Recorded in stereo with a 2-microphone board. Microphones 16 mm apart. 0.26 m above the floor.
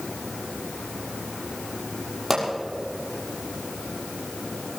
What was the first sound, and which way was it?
A pop, 10° right (ahead or behind).